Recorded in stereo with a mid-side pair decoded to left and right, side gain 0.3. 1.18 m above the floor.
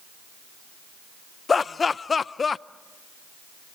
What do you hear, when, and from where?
1.5 s laughter: 50° left, 0.6 m